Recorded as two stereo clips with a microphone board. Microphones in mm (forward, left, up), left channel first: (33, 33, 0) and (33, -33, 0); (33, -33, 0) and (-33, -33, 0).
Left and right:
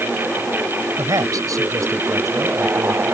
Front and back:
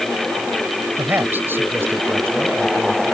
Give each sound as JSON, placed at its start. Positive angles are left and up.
{"t": 1.0, "sound": "a man speaking", "azimuth_deg": -120}